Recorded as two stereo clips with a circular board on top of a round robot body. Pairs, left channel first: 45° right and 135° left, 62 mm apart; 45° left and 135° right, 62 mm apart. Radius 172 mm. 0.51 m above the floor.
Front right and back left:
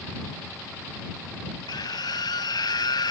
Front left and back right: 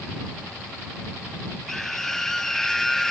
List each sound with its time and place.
1.7 s a scream: 40° right